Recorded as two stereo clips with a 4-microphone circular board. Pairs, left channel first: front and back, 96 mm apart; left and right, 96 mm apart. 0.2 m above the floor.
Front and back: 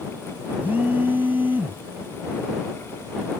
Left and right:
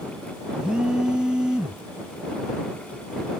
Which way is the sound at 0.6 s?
155° right.